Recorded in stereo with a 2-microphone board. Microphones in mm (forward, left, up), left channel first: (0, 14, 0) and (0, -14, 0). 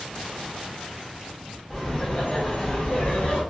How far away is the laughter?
About 1.2 m.